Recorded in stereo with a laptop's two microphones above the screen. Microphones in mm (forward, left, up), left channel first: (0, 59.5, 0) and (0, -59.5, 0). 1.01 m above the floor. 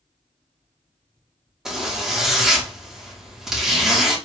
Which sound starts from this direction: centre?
A zipper, at 1.6 s.